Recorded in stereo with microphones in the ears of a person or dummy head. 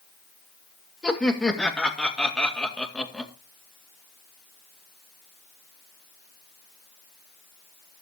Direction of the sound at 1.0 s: 5° left (ahead or behind).